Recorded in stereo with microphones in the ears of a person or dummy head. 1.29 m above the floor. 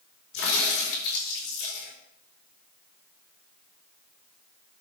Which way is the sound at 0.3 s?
80° left.